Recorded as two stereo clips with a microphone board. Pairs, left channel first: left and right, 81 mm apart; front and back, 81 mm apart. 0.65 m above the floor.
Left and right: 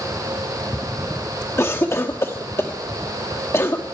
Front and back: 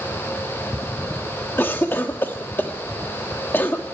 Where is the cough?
50° left, 1.3 m.